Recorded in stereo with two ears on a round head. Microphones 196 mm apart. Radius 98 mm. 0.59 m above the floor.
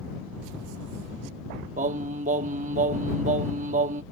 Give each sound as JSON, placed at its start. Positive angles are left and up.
{"t": 1.8, "sound": "singing", "side_deg": -35}